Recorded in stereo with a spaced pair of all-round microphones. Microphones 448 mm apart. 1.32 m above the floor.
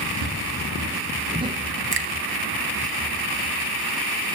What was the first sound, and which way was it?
Footsteps, 30° right (ahead or behind).